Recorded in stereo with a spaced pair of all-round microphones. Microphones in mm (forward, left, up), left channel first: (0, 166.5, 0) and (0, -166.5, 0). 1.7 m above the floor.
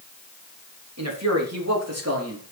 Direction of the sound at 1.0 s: 55° right (ahead or behind).